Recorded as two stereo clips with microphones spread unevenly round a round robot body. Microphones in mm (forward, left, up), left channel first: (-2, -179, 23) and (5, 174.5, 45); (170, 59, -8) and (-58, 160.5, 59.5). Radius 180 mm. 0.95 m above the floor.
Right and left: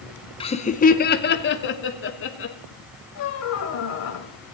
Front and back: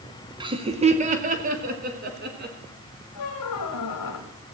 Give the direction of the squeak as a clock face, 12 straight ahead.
1 o'clock.